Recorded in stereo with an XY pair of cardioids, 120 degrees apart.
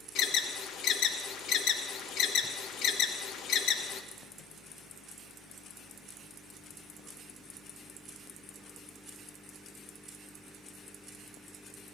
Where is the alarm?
65° left, 0.9 m.